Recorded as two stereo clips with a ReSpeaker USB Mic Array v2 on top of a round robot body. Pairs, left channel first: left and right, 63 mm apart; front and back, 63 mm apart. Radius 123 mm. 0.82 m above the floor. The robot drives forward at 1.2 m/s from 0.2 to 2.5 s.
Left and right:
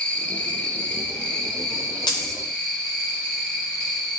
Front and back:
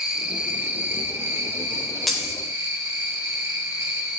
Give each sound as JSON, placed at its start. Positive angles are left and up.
{"t": 0.0, "sound": "an insect", "azimuth_deg": 115, "distance_m": 1.5}
{"t": 2.1, "sound": "a dropped coin", "azimuth_deg": 85, "distance_m": 0.6}